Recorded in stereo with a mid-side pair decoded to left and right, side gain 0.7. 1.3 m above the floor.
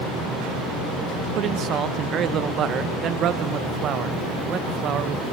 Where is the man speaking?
45° right, 1.2 m.